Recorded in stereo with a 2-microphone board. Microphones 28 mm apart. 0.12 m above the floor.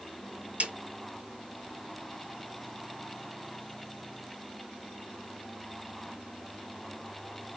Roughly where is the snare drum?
Right.